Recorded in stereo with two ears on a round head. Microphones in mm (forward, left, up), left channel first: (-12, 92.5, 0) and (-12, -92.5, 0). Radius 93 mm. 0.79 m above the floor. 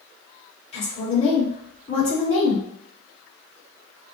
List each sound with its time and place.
0.7 s a woman speaking: 35° left (ahead or behind), 1.9 m